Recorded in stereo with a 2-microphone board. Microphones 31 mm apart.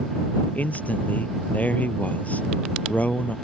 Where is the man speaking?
55° left (ahead or behind).